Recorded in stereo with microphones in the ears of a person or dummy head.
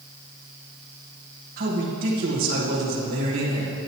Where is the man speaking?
45° right (ahead or behind), 1.8 m.